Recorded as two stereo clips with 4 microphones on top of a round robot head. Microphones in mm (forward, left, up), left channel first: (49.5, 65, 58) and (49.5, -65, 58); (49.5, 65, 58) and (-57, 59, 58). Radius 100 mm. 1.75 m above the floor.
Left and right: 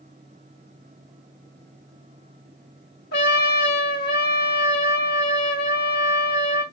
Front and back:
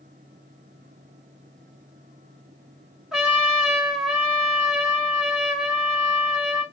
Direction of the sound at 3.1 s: 100° left.